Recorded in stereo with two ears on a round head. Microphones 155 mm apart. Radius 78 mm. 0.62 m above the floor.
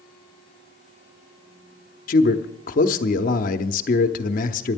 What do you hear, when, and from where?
2.1 s a man speaking: 50° left (ahead or behind), 0.9 m